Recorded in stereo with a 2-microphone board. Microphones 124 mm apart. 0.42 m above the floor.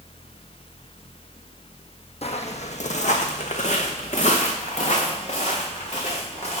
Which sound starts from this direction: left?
Footsteps, at 2.2 s.